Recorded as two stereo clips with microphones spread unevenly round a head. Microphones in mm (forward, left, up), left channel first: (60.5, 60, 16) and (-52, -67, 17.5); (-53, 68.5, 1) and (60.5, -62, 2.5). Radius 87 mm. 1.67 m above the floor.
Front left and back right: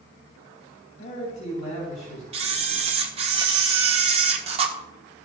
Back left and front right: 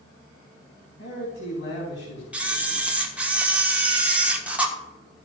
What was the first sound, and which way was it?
A man speaking, 105° left.